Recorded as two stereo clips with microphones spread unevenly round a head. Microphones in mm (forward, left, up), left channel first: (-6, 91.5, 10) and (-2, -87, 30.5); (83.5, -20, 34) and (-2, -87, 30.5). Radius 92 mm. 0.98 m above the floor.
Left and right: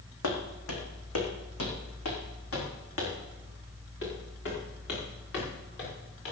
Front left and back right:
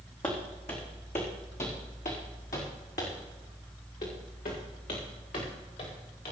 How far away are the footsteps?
About 3.5 m.